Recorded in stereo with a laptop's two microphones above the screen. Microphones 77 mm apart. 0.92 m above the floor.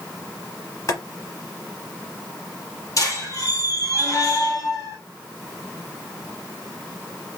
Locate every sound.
0.9 s boiling: 45° left (ahead or behind), 1.3 m
3.0 s a squeak: 45° left (ahead or behind), 1.3 m